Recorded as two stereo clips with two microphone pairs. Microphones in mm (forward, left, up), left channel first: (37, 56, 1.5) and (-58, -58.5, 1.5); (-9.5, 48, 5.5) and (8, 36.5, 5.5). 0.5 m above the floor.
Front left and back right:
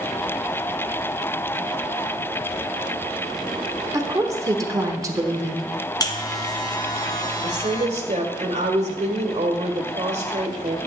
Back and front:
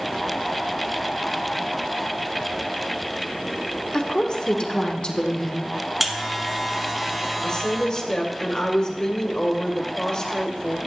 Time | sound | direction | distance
3.9 | a woman speaking | 170° left | 1.1 m
6.0 | a buzzer | 50° left | 0.9 m
7.4 | a woman speaking | 165° right | 1.6 m